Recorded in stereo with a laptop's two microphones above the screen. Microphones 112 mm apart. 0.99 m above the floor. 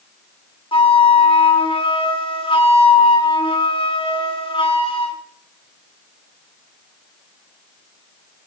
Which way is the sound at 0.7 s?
50° left (ahead or behind).